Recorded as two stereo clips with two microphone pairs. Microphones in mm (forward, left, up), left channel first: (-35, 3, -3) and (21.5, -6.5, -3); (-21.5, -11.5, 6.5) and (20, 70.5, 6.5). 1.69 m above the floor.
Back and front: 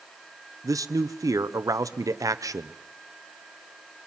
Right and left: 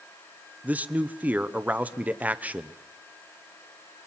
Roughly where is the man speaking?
Ahead.